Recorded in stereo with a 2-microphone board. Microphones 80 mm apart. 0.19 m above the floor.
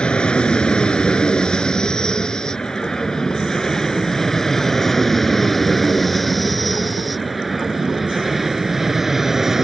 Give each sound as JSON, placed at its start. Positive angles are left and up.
{"t": 0.0, "sound": "an aircraft", "side_deg": 10}